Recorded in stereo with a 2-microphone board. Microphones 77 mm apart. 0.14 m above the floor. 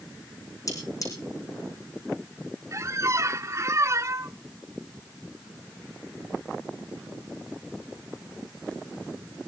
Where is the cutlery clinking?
45° left (ahead or behind), 4.5 m.